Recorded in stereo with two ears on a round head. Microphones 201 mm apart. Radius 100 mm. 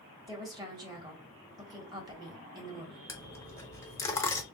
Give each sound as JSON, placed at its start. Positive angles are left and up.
{"t": 0.3, "sound": "a woman speaking", "side_deg": -20, "distance_m": 1.4}
{"t": 3.1, "sound": "a dropped coin", "side_deg": 15, "distance_m": 0.6}